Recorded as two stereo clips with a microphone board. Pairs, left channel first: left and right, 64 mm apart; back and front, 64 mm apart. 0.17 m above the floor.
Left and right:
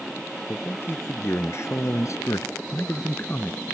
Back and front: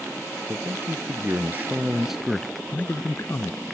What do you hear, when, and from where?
0.5 s a man speaking: 35° left; by 3.6 s 155° left